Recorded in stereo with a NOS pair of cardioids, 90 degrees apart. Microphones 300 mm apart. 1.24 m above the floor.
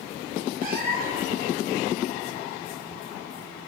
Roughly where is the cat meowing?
Ahead right.